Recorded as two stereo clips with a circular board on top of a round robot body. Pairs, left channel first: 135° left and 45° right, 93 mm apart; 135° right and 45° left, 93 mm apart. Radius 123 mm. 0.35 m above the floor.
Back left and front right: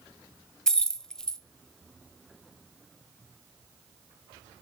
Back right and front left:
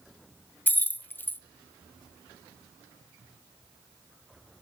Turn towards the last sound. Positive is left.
turn(degrees=-155)